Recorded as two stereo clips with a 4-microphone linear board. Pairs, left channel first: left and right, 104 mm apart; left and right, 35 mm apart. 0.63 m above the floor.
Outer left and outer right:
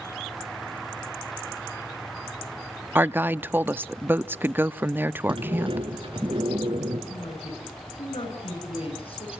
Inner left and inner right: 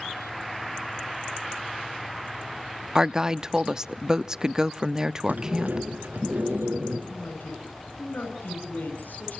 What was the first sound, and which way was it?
A woman speaking, 20° right (ahead or behind).